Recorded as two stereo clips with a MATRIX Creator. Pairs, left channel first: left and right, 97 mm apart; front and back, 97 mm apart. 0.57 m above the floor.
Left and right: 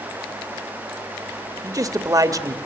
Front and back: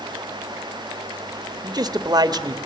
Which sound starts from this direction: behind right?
A man speaking, at 1.6 s.